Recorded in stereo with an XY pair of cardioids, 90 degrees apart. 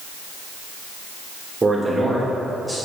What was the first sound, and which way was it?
A man speaking, 15° right.